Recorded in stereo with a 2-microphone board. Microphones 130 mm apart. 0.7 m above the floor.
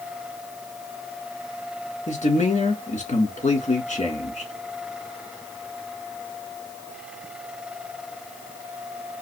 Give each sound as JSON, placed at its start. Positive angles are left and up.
{"t": 2.1, "sound": "a man speaking", "side_deg": 65, "distance_m": 1.8}